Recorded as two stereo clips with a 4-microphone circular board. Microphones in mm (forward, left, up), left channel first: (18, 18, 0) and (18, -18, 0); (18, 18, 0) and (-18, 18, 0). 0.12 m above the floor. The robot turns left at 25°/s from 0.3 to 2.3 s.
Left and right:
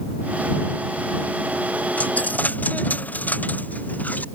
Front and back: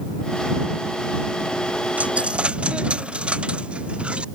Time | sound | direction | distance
2.0 | a dropped coin | 130° left | ?